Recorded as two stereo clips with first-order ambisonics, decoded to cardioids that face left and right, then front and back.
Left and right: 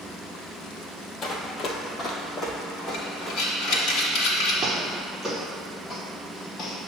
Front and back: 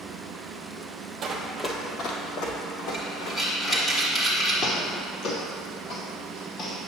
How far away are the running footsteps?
About 0.9 m.